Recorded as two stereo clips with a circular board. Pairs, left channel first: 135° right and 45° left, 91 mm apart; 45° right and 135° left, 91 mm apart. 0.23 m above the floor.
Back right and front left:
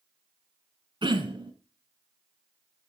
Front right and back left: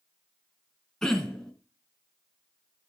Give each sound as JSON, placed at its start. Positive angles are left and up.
{"t": 1.0, "sound": "throat clearing", "azimuth_deg": 40, "distance_m": 1.3}